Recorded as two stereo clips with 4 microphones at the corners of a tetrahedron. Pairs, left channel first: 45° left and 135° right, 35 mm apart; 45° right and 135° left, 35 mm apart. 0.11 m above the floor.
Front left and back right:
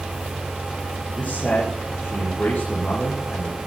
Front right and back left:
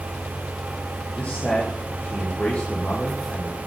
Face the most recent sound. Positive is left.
turn(degrees=0)